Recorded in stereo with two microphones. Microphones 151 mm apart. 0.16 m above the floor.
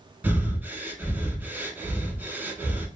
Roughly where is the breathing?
Centre.